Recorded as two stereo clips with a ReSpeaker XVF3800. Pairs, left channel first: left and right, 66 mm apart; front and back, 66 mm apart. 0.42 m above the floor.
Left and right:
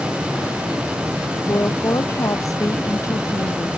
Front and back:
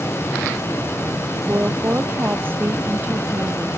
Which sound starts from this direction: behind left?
A woman speaking, at 1.5 s.